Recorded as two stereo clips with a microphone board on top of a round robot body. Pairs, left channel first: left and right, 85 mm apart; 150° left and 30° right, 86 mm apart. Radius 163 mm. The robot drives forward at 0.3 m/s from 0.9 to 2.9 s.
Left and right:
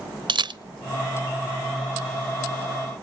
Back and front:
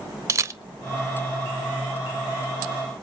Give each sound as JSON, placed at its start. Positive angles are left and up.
{"t": 0.3, "sound": "a camera shutter", "azimuth_deg": -85, "distance_m": 0.9}